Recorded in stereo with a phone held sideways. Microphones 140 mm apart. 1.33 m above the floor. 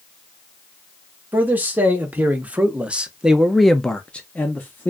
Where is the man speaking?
10° right (ahead or behind), 1.4 m; by 4.9 s 15° left (ahead or behind), 0.8 m.